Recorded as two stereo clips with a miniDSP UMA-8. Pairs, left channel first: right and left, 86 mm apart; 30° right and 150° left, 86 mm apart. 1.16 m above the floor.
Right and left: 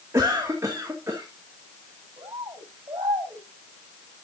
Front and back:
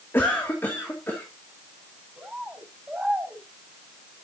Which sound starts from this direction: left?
A bird, at 2.2 s.